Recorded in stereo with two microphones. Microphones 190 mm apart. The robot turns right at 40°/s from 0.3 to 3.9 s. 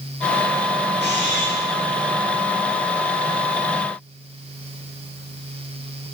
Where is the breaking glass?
No breaking glass in this recording.